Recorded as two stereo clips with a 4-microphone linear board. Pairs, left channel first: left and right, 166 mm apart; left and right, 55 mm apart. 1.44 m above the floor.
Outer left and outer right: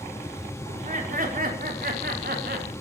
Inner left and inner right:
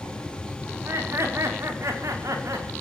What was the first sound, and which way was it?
Laughter, 55° right (ahead or behind).